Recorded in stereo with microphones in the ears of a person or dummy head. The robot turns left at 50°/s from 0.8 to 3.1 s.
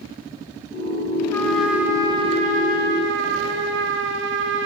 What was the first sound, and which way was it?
A trumpet, 15° left.